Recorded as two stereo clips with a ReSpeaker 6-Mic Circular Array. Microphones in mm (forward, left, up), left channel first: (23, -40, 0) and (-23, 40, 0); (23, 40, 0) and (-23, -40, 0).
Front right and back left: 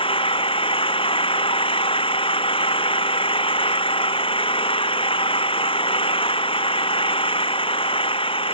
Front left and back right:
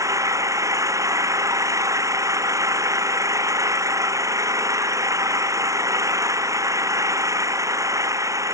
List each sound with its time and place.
0.0 s an engine running: 65° right